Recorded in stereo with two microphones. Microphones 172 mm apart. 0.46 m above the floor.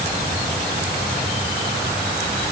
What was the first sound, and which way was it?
Only background noise.